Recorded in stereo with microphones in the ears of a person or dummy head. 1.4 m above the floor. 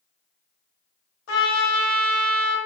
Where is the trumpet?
85° left, 1.2 m.